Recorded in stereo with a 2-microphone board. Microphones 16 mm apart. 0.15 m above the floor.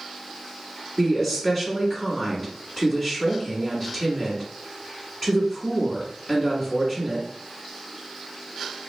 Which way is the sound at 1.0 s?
25° left (ahead or behind).